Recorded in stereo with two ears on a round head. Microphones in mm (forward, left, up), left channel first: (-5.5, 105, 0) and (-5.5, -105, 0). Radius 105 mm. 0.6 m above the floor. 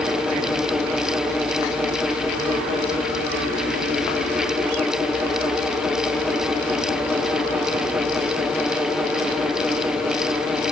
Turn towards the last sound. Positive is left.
No sound to turn to.